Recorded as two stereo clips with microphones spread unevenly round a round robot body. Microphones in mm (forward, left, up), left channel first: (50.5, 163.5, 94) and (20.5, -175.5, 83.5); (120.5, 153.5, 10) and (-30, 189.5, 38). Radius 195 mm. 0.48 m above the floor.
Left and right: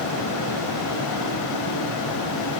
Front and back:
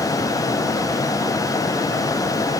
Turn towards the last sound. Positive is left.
No sound to turn to.